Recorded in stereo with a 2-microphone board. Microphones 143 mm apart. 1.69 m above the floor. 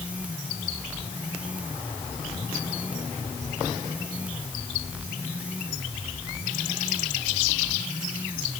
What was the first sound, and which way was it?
Only background noise.